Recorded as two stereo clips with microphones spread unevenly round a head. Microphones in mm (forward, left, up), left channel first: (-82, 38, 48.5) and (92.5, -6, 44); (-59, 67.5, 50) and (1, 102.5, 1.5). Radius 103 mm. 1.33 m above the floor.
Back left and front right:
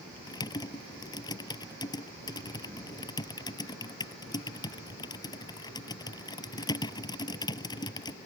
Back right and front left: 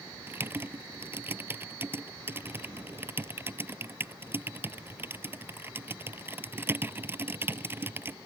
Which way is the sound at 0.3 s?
100° left.